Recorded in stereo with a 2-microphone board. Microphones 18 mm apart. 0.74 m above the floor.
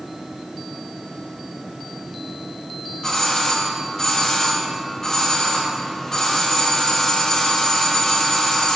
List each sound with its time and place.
3.0 s a doorbell: 30° left (ahead or behind), 1.5 m